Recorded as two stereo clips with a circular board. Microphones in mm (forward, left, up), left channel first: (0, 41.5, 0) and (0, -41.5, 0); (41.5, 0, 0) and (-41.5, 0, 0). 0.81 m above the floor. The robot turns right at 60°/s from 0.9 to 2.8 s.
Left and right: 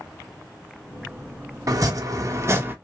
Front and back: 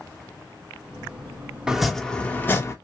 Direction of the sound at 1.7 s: 100° right.